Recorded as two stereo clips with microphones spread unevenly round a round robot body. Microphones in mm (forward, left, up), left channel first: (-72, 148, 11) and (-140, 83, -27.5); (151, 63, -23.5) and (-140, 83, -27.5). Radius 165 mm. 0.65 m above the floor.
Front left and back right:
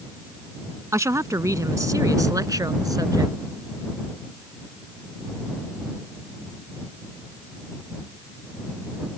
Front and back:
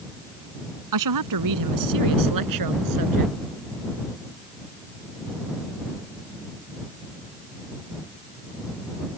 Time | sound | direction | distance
0.9 | a woman speaking | 165° left | ?